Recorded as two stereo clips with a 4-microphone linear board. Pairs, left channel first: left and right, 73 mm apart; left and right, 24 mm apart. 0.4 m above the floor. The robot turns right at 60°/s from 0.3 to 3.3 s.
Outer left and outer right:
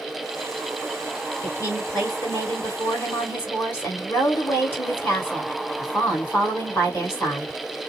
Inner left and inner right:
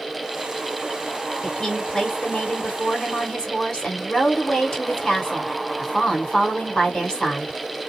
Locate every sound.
1.4 s a woman speaking: 35° left, 2 m; by 7.6 s 145° left, 2 m